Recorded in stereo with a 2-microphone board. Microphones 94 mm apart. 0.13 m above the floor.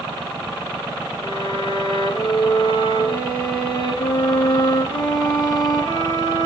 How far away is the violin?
About 7 m.